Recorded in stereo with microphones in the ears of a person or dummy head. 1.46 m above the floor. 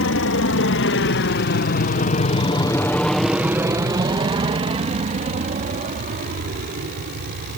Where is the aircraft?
65° left (ahead or behind); by 7.6 s 50° right (ahead or behind).